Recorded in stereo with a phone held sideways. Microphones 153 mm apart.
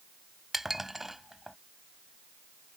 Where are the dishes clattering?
Centre (ahead or behind).